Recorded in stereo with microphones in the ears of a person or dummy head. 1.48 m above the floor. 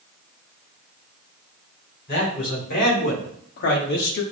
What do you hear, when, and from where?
2.1 s a man speaking: 50° left (ahead or behind), 2.5 m; by 4.2 s 60° left (ahead or behind), 0.7 m